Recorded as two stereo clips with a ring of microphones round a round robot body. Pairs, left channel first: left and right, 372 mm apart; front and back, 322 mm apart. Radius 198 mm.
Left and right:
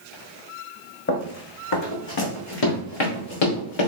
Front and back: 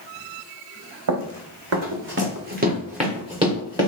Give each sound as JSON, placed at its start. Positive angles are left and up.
{"t": 1.1, "sound": "running footsteps", "azimuth_deg": 150, "distance_m": 1.3}